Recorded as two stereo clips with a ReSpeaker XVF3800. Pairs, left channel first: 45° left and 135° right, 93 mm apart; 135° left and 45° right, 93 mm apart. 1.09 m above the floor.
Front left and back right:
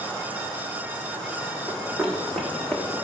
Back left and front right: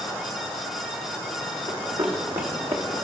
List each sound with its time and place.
1.7 s running footsteps: 40° right, 3.5 m